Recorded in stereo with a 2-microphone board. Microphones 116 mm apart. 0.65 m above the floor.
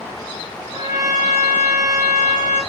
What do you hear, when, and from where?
0.7 s a trumpet: 30° right (ahead or behind), 1.3 m